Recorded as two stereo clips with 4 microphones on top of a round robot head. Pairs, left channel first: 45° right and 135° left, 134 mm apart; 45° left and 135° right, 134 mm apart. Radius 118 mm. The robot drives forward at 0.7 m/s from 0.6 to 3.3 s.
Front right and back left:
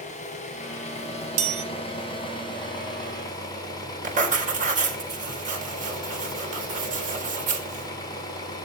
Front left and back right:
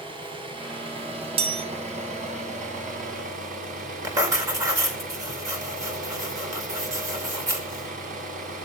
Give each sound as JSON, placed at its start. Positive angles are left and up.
{"t": 0.0, "sound": "an engine running", "azimuth_deg": -80, "distance_m": 4.0}
{"t": 1.4, "sound": "a chime", "azimuth_deg": 175, "distance_m": 1.3}
{"t": 4.0, "sound": "writing", "azimuth_deg": 160, "distance_m": 4.0}